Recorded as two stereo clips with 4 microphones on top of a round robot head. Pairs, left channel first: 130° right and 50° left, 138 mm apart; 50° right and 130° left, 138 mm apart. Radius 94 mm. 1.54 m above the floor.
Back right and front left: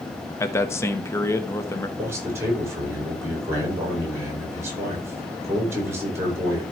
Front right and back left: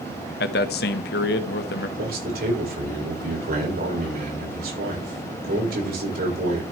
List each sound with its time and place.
0.4 s a man speaking: 60° right, 1.0 m
2.0 s a man speaking: 125° left, 6 m